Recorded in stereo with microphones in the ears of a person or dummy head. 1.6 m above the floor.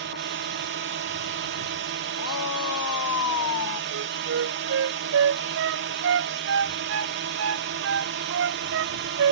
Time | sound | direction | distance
0.0 | a drone | 55° right (ahead or behind) | ?
2.2 | a shout | 70° left (ahead or behind) | ?
3.9 | a flute | 50° right (ahead or behind) | ?